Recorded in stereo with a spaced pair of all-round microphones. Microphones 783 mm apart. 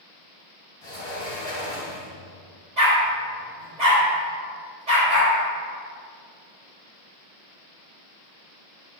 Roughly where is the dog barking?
Right.